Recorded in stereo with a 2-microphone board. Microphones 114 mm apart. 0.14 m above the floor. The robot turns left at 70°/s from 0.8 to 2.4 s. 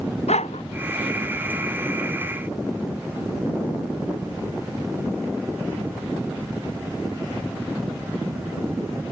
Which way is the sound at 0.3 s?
85° left.